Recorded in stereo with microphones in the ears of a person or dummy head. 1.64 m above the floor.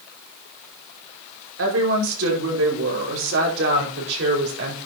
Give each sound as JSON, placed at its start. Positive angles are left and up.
{"t": 1.6, "sound": "a woman speaking", "side_deg": -80, "distance_m": 5.5}